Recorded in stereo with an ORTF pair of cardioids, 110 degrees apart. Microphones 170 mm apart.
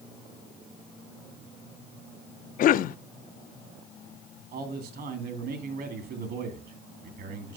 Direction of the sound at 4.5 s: 65° right.